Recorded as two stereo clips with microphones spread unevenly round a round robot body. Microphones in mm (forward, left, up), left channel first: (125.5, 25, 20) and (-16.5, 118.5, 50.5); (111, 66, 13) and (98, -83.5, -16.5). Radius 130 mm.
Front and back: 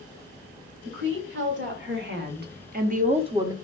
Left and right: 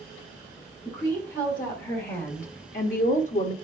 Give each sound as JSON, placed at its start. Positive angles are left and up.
{"t": 0.8, "sound": "a woman speaking", "azimuth_deg": 150, "distance_m": 3.5}